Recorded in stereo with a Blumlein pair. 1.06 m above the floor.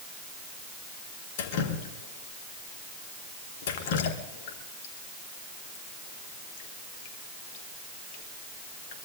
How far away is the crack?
I don't hear a crack.